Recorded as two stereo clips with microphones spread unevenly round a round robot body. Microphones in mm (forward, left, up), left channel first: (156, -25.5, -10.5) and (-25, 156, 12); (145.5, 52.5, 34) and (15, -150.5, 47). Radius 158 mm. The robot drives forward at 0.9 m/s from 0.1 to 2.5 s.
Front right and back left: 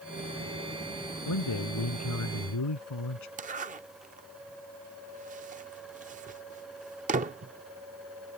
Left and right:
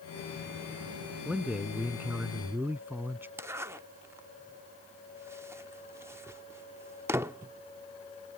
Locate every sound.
1.2 s a man speaking: 35° right; by 3.3 s 40° right
3.4 s a zipper: 160° left